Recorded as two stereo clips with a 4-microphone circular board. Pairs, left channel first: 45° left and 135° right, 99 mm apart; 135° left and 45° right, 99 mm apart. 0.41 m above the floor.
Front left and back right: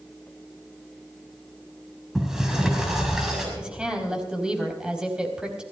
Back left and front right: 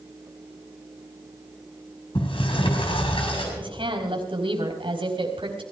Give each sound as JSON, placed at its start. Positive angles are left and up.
{"t": 2.1, "sound": "a sliding door", "azimuth_deg": 140, "distance_m": 6.0}
{"t": 3.6, "sound": "a woman speaking", "azimuth_deg": -55, "distance_m": 4.0}